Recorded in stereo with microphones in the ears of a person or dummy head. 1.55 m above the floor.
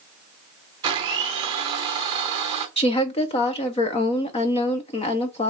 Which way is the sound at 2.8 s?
30° left (ahead or behind).